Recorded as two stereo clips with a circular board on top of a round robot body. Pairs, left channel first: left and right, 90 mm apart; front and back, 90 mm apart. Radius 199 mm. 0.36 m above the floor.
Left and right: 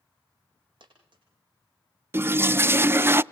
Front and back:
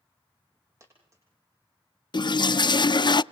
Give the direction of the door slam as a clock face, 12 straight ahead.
I don't hear a door slam.